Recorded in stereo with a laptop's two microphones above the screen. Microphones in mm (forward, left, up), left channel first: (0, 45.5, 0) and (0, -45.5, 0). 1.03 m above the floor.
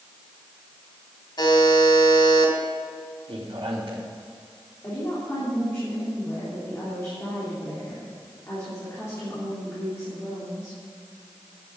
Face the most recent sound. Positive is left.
turn(degrees=30)  # may be behind; listen again after turning